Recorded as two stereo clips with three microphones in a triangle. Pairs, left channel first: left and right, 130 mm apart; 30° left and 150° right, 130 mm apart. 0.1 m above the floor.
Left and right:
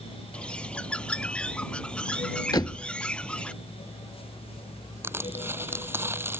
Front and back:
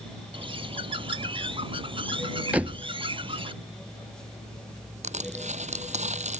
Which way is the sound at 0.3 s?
170° left.